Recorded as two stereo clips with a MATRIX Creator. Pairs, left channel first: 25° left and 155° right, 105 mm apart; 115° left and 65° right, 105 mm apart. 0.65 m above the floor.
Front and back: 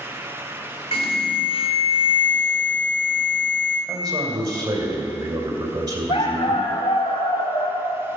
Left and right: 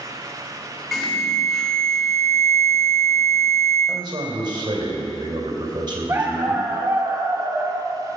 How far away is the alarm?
About 2.5 m.